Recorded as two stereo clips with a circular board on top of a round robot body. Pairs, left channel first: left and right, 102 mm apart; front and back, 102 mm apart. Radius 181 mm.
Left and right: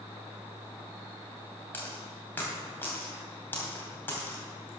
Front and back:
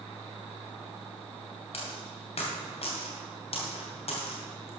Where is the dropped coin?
20° left, 2.5 m.